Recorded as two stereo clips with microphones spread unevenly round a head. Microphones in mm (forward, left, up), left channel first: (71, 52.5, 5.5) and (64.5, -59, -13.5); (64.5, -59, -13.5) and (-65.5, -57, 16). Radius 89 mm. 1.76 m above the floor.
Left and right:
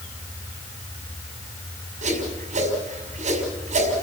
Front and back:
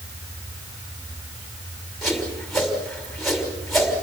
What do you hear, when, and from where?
2.0 s a whoosh: 95° right, 5.5 m